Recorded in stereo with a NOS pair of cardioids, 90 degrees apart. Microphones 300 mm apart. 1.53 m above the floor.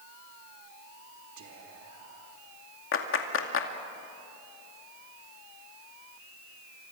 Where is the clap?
45° left, 2.5 m.